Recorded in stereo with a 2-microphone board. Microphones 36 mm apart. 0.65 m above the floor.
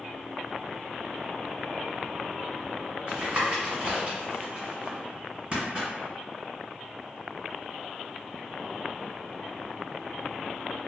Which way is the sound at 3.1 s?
30° right (ahead or behind).